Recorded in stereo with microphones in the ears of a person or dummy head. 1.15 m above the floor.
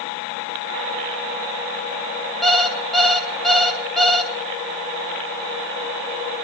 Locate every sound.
2.4 s an alarm clock: centre (ahead or behind), 1.5 m